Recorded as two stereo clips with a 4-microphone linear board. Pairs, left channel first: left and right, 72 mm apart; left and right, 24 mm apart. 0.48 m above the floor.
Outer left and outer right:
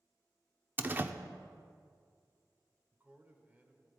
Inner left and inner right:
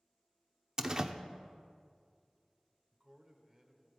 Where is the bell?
No bell in this recording.